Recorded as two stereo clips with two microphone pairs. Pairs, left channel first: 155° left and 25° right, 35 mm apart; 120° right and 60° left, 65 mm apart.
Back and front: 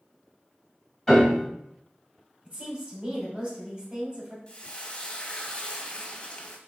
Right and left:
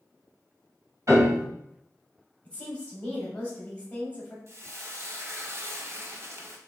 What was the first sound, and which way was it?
A piano, 70° left.